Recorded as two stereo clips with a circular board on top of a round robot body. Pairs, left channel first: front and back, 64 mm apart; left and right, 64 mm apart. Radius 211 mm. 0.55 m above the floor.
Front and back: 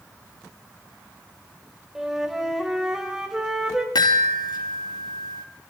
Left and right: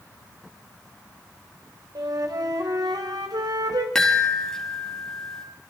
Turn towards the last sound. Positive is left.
turn(degrees=5)